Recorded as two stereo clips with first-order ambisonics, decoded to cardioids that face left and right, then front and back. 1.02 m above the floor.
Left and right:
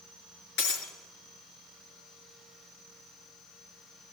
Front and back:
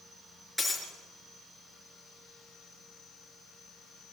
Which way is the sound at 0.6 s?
90° left.